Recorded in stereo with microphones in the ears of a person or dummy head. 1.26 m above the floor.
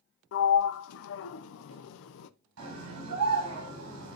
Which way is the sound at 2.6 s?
85° right.